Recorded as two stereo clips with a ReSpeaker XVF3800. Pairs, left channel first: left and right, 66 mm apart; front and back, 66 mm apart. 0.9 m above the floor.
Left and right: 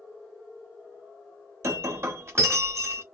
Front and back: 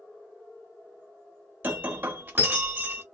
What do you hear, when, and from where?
1.6 s breaking glass: 125° right, 0.6 m